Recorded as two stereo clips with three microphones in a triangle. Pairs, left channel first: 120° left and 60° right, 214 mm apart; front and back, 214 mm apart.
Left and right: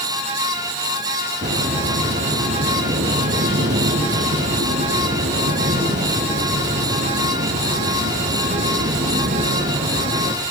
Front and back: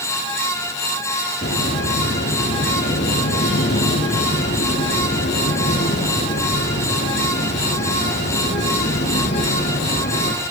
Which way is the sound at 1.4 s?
35° right.